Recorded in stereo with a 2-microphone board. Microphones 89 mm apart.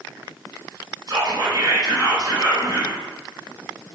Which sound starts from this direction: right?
Whispering, at 1.1 s.